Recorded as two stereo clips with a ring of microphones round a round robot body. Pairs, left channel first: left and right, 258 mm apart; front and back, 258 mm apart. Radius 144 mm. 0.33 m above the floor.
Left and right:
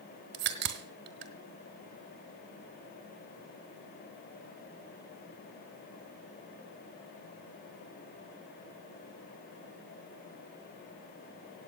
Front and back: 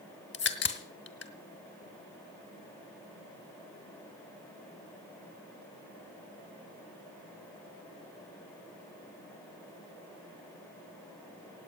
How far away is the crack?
About 1.7 m.